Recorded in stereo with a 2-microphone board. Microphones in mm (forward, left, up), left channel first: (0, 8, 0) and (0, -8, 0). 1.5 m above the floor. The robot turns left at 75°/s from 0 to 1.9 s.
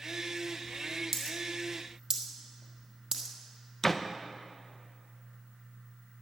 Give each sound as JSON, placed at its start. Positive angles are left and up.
{"t": 1.1, "sound": "a dropped coin", "side_deg": -10, "distance_m": 2.0}
{"t": 3.8, "sound": "a door slam", "side_deg": 10, "distance_m": 0.7}